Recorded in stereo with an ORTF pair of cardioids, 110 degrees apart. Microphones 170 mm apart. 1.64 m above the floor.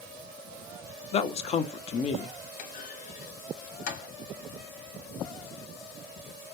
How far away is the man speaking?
About 0.6 m.